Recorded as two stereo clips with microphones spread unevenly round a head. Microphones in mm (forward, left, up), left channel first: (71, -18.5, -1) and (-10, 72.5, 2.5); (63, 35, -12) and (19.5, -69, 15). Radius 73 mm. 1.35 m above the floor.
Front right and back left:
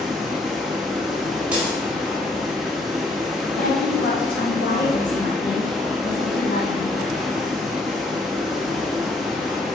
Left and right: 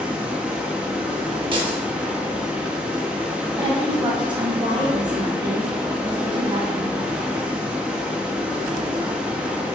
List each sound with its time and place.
0.0 s running water: 145° right, 0.7 m
1.5 s breaking glass: 150° right, 1.3 m
3.6 s a woman speaking: 65° right, 2.5 m